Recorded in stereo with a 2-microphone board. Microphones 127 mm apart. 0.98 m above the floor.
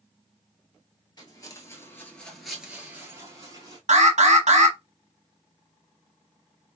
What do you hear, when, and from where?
1.2 s footsteps: 35° left (ahead or behind), 1.1 m; by 3.8 s 35° right (ahead or behind), 1.2 m
3.9 s an alarm: 80° right, 1.0 m